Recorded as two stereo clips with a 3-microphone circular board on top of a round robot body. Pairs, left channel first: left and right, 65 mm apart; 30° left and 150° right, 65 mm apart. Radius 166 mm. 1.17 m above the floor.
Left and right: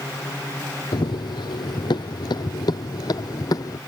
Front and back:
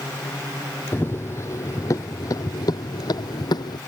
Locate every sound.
0.9 s running footsteps: 90° left; by 3.8 s 50° left